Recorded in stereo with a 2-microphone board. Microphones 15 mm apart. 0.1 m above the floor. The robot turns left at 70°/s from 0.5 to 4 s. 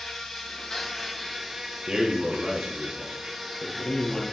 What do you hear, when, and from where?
0.0 s an insect: 60° left, 2.5 m; by 4.3 s 175° left, 2.5 m
1.9 s a man speaking: 90° right, 3 m; by 4.2 s 120° left, 3 m